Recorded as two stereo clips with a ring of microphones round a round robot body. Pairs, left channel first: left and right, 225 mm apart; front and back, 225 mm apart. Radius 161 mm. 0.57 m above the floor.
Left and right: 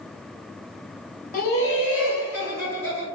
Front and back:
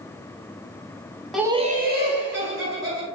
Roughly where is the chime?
I don't hear a chime.